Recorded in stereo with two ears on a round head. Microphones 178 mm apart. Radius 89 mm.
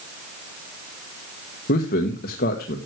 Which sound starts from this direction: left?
A man speaking, at 1.7 s.